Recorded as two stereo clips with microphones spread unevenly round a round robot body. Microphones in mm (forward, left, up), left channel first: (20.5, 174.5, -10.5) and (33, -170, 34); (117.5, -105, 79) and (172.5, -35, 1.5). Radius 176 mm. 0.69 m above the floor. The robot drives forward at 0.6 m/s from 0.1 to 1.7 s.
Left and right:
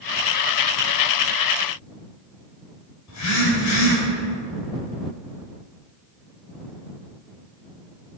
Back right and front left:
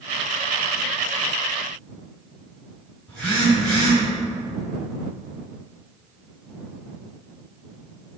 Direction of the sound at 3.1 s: 135° left.